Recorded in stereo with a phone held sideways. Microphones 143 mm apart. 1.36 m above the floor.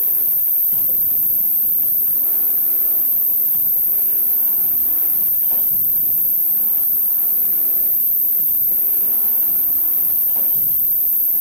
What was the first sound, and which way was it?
An insect, 35° left (ahead or behind).